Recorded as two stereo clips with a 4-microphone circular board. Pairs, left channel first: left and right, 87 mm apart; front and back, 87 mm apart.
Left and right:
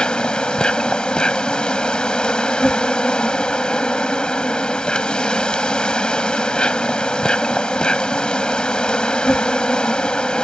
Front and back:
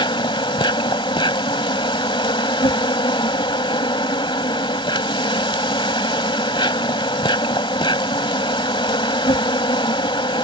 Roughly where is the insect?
Ahead.